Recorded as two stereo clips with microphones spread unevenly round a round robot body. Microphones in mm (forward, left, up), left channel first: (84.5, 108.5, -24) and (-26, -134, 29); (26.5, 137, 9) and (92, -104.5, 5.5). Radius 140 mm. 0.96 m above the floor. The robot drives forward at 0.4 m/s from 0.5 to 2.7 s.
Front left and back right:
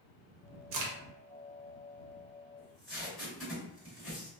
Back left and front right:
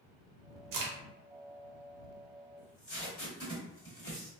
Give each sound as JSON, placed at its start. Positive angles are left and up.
{"t": 0.7, "sound": "a crack", "azimuth_deg": -90, "distance_m": 0.7}
{"t": 2.6, "sound": "tape being pulled", "azimuth_deg": 150, "distance_m": 1.7}